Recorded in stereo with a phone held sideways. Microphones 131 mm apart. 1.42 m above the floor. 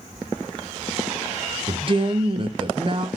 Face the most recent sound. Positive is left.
turn(degrees=-40)  # may be behind; listen again after turning